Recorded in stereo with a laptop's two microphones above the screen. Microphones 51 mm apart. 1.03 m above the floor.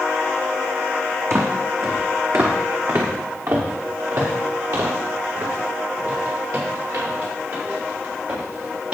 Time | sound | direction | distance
1.3 | footsteps | 65° right (ahead or behind) | 2 m